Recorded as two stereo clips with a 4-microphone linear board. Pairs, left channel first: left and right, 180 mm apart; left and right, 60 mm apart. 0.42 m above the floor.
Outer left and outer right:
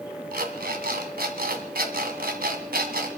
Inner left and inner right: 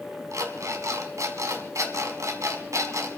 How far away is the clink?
I don't hear a clink.